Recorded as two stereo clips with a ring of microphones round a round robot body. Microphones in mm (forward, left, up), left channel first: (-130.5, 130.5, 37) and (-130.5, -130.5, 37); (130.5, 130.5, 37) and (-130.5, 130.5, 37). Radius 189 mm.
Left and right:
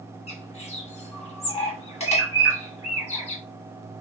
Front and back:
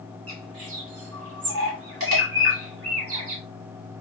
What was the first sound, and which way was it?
A bird, 155° left.